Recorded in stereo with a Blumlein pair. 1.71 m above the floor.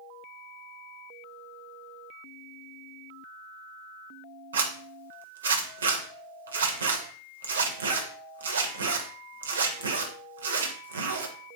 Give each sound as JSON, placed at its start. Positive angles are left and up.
{"t": 4.5, "sound": "a zipper", "azimuth_deg": -70, "distance_m": 0.8}